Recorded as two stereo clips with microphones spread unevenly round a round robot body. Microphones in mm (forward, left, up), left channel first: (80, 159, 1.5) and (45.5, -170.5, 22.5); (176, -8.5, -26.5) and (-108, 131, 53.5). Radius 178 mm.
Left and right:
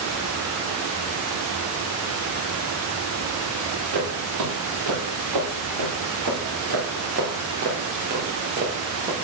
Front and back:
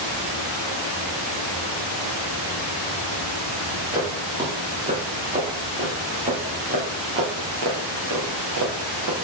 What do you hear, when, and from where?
3.9 s footsteps: 125° right, 3.5 m; by 9.1 s 175° right, 2 m